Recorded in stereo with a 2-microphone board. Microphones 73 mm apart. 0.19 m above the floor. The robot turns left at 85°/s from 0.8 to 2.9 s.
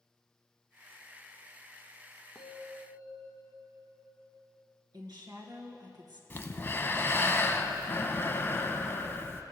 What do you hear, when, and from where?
2.4 s a bell: 175° left, 1.1 m; by 4.4 s 125° left, 1.1 m
4.9 s a woman speaking: 65° right (ahead or behind), 2 m
6.3 s breathing: 30° left (ahead or behind), 0.6 m